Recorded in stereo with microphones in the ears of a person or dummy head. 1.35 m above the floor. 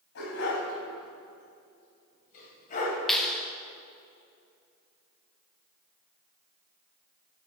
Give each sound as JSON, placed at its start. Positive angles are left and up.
{"t": 0.1, "sound": "a dog barking", "side_deg": 65, "distance_m": 4.0}
{"t": 3.1, "sound": "a clap", "side_deg": 0, "distance_m": 1.2}